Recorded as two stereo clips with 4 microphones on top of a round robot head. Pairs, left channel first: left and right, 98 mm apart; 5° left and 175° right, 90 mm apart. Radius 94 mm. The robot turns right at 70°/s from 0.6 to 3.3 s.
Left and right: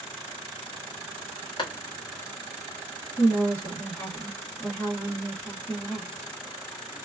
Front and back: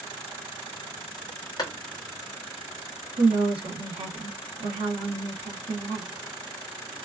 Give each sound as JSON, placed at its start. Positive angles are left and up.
{"t": 1.6, "sound": "a clap", "azimuth_deg": 45, "distance_m": 1.5}
{"t": 3.2, "sound": "a woman speaking", "azimuth_deg": 155, "distance_m": 1.1}